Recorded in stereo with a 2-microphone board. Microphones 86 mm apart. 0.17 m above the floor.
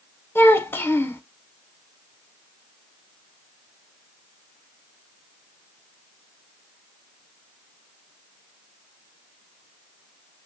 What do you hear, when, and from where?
0.3 s a child speaking: 25° left (ahead or behind), 0.7 m